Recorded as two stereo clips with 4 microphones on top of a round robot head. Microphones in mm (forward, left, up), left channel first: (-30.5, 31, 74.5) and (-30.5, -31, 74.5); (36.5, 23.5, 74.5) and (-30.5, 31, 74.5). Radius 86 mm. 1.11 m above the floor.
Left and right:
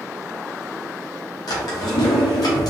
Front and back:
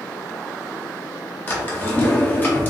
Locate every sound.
1.5 s a drawer: 55° left, 0.6 m